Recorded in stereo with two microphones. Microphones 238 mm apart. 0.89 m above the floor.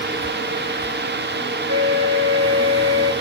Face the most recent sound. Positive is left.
turn(degrees=-80)